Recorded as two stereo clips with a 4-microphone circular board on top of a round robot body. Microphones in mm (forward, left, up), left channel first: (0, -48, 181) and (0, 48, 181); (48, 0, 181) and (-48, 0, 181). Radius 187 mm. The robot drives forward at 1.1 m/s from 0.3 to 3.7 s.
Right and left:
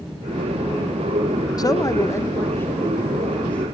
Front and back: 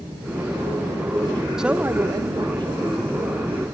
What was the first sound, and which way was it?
A man speaking, 95° right.